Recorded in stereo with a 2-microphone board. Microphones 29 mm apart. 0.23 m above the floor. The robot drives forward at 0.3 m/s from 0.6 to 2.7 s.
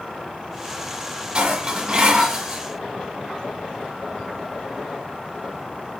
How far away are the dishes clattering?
About 1.0 m.